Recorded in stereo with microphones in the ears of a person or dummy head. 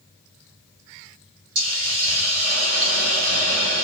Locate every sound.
1.6 s a hiss: 55° right (ahead or behind), 1.9 m